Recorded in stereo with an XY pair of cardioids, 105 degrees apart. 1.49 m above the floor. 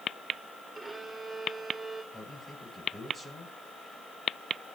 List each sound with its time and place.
0.8 s a violin: 15° right, 4 m
2.1 s a man speaking: 30° left, 8.5 m